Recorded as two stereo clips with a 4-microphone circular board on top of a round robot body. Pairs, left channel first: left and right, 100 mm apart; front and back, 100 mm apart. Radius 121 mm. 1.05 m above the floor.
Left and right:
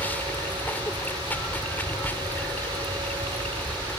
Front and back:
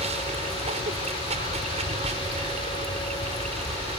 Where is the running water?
165° left.